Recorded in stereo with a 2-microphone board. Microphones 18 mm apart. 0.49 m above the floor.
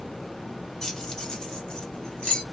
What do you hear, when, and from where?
0.8 s keys jangling: 35° left (ahead or behind), 1.4 m; by 2.4 s 75° left (ahead or behind), 2.5 m